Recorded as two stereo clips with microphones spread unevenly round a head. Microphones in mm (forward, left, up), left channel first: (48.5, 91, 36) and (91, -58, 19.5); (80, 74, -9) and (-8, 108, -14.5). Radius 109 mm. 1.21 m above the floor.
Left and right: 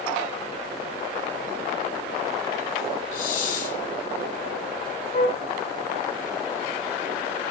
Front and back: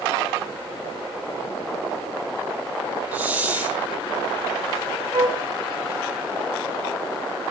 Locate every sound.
3.1 s a hiss: 80° left, 3.5 m
5.1 s a flute: 125° left, 0.7 m